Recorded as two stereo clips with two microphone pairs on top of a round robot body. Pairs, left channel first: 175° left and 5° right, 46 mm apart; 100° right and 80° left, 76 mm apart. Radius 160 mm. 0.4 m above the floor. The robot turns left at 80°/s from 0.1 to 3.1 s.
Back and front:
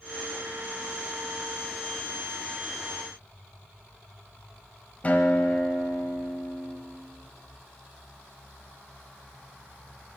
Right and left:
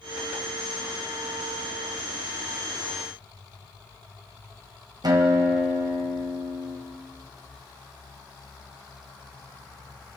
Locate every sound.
5.0 s a guitar: 110° left, 1.6 m